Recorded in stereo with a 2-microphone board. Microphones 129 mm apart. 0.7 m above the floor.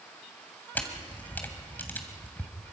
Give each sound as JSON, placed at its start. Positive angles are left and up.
{"t": 0.8, "sound": "a camera shutter", "side_deg": 15, "distance_m": 2.5}